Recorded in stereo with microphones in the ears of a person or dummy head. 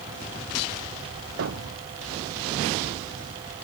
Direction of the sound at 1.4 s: 65° right (ahead or behind).